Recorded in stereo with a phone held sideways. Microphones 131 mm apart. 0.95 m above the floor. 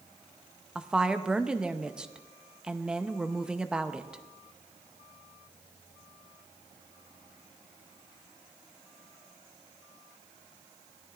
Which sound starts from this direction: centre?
A woman speaking, at 0.8 s.